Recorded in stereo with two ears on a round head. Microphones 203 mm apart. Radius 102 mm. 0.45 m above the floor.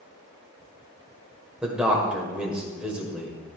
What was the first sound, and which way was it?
A man speaking, 5° right (ahead or behind).